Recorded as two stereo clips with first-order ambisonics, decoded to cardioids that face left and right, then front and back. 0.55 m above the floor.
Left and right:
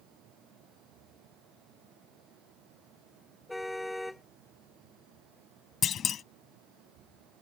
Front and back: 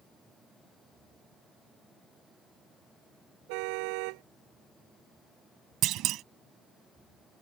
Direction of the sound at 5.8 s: 145° left.